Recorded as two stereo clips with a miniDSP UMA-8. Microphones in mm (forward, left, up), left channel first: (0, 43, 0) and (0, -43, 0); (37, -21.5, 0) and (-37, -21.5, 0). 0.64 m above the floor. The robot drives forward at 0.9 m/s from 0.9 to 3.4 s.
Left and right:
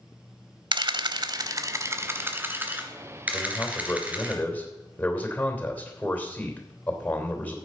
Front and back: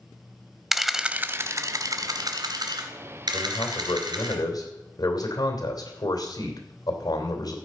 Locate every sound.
0.7 s a camera shutter: 95° right, 0.7 m; by 4.3 s 165° right, 2.5 m
3.3 s a man speaking: 15° left, 3 m